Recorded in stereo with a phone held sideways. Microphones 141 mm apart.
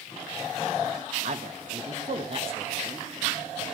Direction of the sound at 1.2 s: 60° right (ahead or behind).